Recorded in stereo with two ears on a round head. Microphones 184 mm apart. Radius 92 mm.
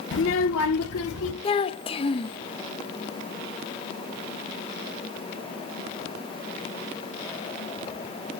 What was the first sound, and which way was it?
A child speaking, 60° left (ahead or behind).